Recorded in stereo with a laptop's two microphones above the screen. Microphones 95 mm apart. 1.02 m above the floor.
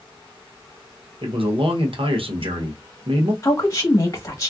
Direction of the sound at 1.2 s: 65° right (ahead or behind).